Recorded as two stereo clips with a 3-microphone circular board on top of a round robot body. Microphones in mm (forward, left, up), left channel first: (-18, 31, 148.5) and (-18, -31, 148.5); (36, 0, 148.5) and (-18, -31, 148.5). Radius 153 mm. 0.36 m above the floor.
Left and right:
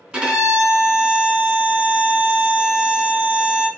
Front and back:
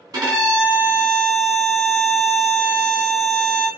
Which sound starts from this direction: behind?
A violin, at 0.1 s.